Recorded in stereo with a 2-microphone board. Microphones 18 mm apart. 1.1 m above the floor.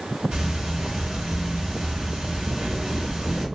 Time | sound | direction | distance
0.3 | ticking | 60° right (ahead or behind) | 1.4 m